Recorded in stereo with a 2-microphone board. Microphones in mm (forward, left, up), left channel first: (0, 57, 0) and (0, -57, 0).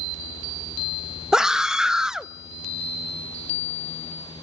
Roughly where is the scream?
Centre.